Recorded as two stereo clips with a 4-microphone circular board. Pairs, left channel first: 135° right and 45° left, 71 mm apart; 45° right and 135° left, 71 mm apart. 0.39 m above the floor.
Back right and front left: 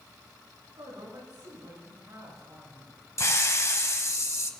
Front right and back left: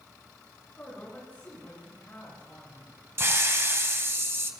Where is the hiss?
175° right, 1.1 m.